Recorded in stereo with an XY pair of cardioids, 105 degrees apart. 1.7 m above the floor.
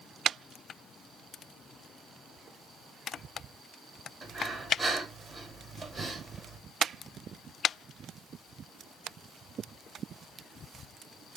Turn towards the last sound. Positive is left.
turn(degrees=-30)